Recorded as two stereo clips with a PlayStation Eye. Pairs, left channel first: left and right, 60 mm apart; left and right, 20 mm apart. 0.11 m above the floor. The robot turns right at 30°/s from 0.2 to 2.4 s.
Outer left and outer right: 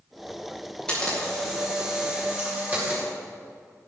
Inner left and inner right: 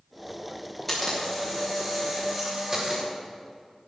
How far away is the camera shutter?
About 6.5 m.